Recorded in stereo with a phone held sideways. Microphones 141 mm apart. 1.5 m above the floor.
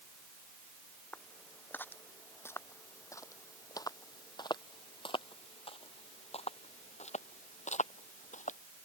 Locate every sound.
1.1 s footsteps: 10° left (ahead or behind); by 8.6 s 65° left (ahead or behind)